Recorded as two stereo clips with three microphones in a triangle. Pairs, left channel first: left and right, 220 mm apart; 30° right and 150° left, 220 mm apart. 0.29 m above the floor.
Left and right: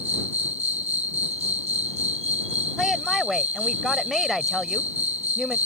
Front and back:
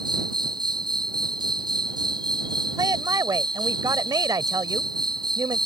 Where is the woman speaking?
Straight behind.